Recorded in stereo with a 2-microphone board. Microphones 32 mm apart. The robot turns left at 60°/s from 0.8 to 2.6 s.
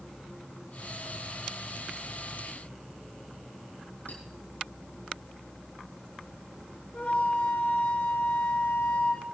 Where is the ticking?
No ticking in this recording.